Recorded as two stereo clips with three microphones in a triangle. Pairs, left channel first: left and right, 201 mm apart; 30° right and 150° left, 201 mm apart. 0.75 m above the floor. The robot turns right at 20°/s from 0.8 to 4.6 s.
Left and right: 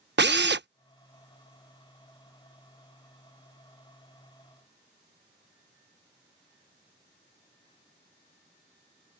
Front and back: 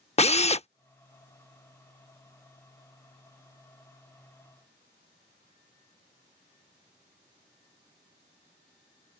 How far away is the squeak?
I don't hear a squeak.